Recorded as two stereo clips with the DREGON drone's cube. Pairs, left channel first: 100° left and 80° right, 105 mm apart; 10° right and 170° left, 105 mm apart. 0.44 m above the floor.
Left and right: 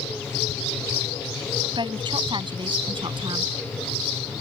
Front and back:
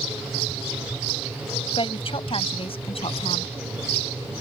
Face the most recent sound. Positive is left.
turn(degrees=-35)